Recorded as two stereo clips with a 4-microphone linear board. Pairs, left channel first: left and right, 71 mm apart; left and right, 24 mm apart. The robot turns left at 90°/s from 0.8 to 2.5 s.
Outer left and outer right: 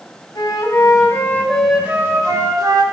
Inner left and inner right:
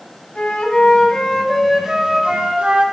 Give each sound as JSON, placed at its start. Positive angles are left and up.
{"t": 0.3, "sound": "a flute", "azimuth_deg": 70, "distance_m": 1.9}